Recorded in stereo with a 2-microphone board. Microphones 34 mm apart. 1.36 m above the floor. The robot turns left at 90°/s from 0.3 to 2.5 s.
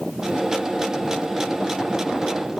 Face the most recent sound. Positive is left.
No sound to turn to.